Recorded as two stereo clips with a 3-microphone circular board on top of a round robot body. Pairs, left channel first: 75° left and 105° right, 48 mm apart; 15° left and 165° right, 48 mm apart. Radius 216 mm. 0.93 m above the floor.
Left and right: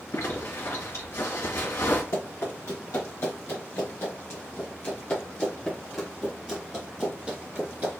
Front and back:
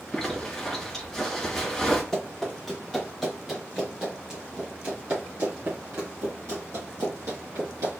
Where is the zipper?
100° left, 2 m.